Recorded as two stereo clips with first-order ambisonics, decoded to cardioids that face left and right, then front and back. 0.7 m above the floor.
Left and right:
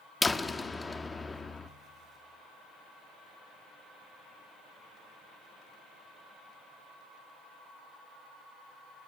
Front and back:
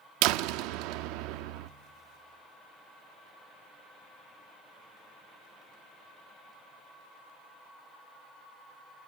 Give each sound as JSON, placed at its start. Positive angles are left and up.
{"t": 0.2, "sound": "a door slam", "azimuth_deg": 170, "distance_m": 0.6}